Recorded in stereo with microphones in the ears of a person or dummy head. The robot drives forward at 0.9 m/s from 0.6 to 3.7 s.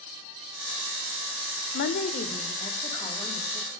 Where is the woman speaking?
60° left (ahead or behind), 0.6 m; by 3.7 s 15° left (ahead or behind), 2 m.